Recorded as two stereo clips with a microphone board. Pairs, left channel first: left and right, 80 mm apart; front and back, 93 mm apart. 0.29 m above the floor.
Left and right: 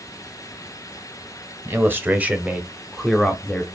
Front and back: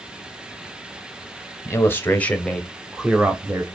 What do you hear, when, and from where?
1.6 s a man speaking: 45° right, 1.1 m; by 3.6 s 150° left, 1.0 m